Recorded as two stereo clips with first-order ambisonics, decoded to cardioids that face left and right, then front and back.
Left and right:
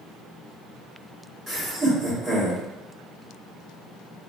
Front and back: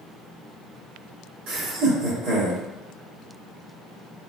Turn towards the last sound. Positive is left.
turn(degrees=-165)